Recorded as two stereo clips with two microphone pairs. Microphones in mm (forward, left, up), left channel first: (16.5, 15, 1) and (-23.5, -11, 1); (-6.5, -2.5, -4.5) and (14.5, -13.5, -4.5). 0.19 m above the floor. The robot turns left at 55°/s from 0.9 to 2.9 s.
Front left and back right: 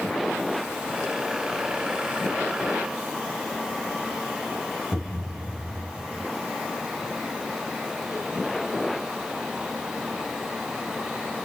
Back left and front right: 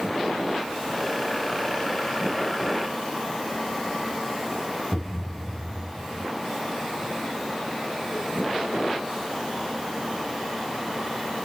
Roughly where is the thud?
Right.